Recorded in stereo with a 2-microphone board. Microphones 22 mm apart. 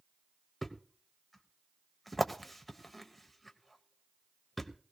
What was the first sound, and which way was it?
A thud, 10° left (ahead or behind).